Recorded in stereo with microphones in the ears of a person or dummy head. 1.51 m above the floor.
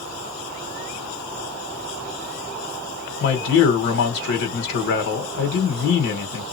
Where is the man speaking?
55° left (ahead or behind), 1.5 m.